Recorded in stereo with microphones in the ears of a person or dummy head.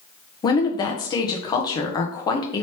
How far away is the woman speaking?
About 0.7 m.